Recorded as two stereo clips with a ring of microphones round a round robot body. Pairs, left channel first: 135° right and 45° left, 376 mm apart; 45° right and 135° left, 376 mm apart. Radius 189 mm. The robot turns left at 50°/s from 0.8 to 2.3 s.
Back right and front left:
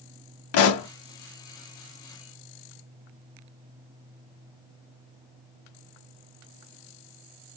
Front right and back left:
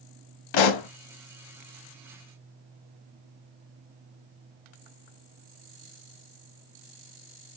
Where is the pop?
80° right, 0.6 m; by 0.9 s 85° right, 0.6 m.